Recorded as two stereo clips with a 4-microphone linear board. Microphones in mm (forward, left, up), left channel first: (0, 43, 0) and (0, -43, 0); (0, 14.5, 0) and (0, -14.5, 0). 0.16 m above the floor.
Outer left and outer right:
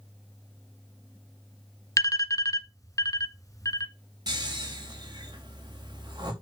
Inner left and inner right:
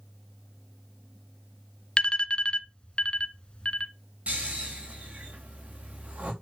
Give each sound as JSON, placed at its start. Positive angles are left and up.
{"t": 2.0, "sound": "an alarm", "side_deg": 40, "distance_m": 1.3}
{"t": 4.3, "sound": "snoring", "side_deg": -55, "distance_m": 4.5}